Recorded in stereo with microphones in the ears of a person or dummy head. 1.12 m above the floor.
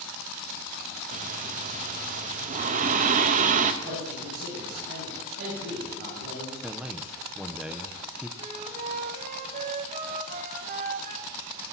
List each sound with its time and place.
1.1 s breathing: 45° right (ahead or behind), 1.0 m
3.8 s a man speaking: 50° right (ahead or behind), 8 m
6.6 s a man speaking: 5° right (ahead or behind), 0.7 m
8.4 s a flute: 40° right (ahead or behind), 1.1 m